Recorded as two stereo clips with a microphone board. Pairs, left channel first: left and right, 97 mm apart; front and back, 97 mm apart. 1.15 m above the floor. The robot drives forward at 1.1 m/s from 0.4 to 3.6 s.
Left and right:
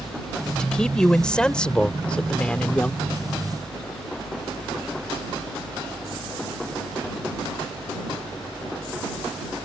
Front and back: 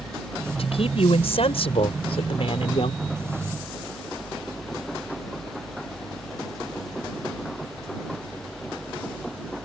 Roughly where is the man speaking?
Ahead.